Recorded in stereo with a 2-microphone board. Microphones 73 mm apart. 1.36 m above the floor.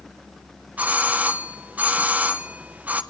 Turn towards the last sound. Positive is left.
turn(degrees=-20)  # may be behind; listen again after turning